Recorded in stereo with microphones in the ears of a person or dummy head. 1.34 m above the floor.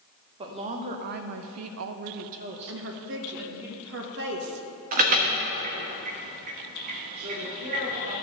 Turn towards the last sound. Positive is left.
turn(degrees=-35)  # may be behind; listen again after turning